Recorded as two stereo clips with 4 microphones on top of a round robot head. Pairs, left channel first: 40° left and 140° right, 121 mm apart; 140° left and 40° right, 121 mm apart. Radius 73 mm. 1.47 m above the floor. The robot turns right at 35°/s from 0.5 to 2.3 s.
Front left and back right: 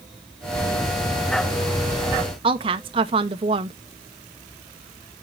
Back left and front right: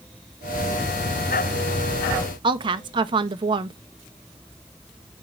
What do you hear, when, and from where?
2.4 s a woman speaking: 90° right, 0.7 m